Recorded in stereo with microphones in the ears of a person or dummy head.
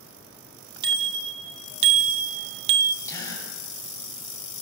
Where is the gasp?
20° left (ahead or behind), 6.5 m.